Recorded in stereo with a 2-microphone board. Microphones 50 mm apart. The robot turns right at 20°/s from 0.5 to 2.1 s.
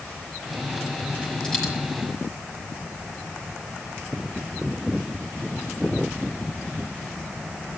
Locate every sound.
1.4 s a dropped coin: 15° left (ahead or behind), 4 m; by 1.7 s 10° left (ahead or behind), 4 m